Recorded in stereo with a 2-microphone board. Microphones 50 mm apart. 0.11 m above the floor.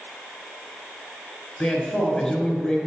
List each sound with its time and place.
1.6 s a man speaking: 10° left (ahead or behind), 1.3 m